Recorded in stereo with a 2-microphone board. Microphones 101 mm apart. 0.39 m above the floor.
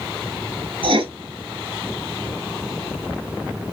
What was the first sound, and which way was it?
Writing, 65° right (ahead or behind).